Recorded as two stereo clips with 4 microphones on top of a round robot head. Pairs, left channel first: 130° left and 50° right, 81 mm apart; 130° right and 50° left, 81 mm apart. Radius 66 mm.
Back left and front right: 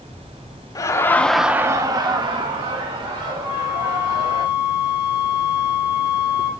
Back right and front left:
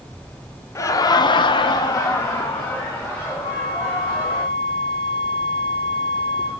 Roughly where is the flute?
Behind right.